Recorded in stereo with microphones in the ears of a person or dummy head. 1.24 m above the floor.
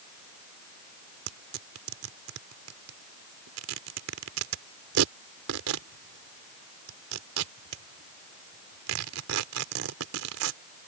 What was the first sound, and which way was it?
Tearing paper, 85° right.